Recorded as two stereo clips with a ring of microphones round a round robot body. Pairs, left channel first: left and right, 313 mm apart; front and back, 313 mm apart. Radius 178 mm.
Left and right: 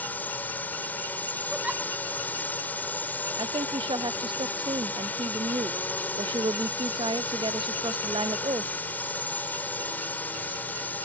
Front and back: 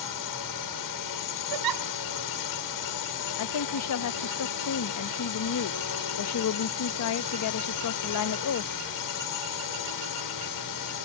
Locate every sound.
0.0 s a drone: 5° left
1.5 s a giggle: 175° right
3.4 s a woman speaking: 15° right